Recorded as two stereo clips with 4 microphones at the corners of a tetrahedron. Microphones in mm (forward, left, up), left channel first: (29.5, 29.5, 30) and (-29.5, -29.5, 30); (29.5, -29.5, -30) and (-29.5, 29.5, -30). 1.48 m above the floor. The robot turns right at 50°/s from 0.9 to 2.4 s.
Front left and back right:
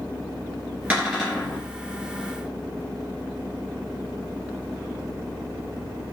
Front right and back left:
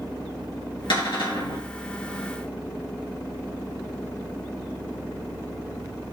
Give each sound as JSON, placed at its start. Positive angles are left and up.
{"t": 0.9, "sound": "a cupboard door", "azimuth_deg": -60, "distance_m": 2.5}